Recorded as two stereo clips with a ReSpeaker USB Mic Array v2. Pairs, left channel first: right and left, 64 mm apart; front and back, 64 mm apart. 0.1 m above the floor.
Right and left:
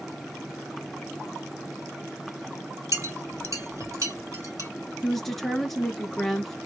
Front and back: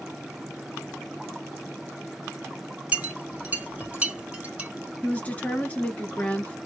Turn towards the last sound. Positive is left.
turn(degrees=-10)